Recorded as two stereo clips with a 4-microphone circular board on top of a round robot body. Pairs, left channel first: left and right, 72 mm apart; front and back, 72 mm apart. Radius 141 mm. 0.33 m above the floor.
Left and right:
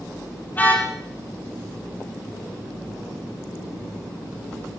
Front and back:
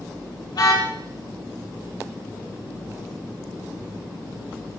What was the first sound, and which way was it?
A car horn, 25° left.